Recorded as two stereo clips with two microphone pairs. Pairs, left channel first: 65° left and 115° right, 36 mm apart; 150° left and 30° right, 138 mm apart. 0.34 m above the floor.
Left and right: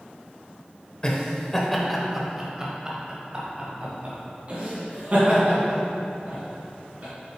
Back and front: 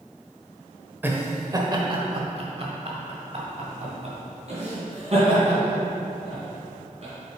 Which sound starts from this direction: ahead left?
Laughter, at 1.0 s.